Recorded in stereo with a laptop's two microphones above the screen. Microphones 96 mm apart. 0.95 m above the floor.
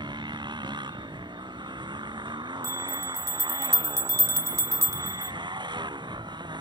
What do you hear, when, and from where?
0.0 s a motorcycle: 50° right (ahead or behind)
2.6 s a bell: 30° right (ahead or behind)